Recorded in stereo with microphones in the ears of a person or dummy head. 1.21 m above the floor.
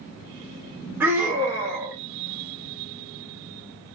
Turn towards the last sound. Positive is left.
turn(degrees=-10)  # may be behind; listen again after turning